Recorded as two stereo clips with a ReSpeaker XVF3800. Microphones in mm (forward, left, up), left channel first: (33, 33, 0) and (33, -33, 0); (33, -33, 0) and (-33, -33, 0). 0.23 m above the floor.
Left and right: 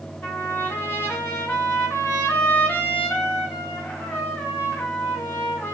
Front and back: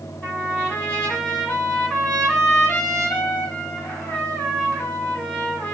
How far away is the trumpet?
About 2.0 m.